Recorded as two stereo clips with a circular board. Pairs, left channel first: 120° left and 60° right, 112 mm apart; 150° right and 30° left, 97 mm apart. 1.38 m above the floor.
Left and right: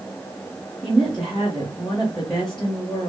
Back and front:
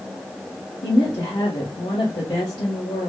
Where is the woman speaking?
150° right, 1.3 m.